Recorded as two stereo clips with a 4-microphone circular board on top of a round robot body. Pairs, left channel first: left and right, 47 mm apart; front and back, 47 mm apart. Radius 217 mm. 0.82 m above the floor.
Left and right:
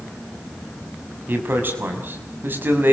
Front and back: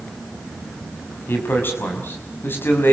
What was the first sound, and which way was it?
A man speaking, 45° right.